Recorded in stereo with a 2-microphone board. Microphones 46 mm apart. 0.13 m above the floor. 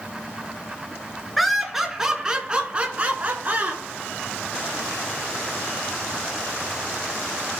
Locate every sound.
1.4 s laughter: centre (ahead or behind), 1.3 m; by 3.8 s 40° right (ahead or behind), 1.3 m